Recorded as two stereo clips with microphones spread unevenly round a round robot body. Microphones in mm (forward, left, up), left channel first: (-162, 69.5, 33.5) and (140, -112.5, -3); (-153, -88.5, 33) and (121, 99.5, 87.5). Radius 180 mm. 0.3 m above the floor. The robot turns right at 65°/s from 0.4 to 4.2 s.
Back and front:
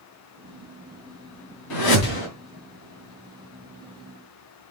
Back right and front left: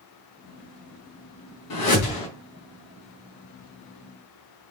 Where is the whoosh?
Straight behind, 3 m; by 2.3 s 145° right, 3 m.